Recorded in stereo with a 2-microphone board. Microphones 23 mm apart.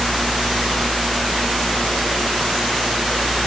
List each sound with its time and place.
Only background noise.